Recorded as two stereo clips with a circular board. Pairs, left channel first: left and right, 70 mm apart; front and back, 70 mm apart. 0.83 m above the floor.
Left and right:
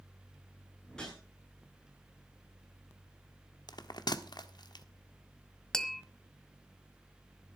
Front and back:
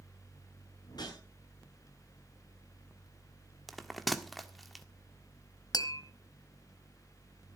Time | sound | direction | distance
0.9 | a whoosh | 10° left | 9 m
3.7 | a bell | 90° left | 1.2 m
5.7 | tapping | 10° left | 1.5 m